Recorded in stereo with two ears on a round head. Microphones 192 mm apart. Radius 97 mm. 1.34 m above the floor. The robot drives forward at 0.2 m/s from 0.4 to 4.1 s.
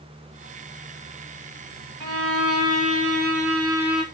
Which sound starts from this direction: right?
A violin, at 2.0 s.